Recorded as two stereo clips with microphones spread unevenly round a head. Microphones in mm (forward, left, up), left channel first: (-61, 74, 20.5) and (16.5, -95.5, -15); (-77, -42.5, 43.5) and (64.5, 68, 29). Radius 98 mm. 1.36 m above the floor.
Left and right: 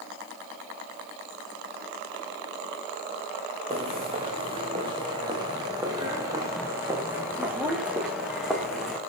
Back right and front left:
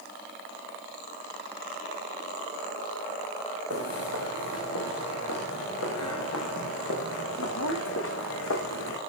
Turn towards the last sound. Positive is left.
turn(degrees=-160)